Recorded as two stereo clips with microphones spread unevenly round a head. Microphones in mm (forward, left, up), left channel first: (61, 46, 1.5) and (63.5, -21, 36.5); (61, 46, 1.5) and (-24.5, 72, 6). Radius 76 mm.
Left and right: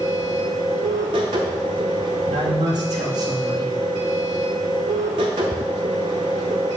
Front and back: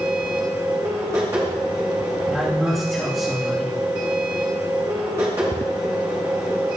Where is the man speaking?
105° right, 1.9 m.